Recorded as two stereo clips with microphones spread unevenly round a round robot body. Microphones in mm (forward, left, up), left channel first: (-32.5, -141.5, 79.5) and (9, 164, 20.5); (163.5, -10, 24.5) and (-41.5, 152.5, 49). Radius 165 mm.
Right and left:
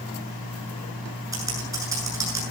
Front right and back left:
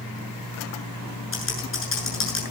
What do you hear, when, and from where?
1.3 s typing on a keyboard: straight ahead, 8 m